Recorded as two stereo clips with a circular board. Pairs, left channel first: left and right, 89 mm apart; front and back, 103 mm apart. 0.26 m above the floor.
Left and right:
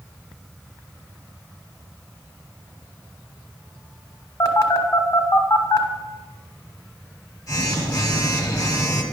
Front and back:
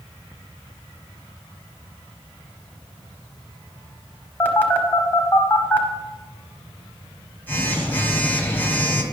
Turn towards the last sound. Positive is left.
turn(degrees=65)